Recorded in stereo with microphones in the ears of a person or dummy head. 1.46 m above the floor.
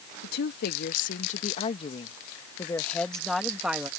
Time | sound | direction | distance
0.2 | a woman speaking | 65° left (ahead or behind) | ?